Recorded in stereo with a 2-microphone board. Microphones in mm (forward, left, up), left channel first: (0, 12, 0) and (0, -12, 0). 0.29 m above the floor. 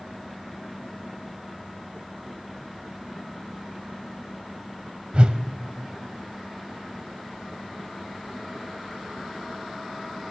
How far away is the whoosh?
About 0.8 m.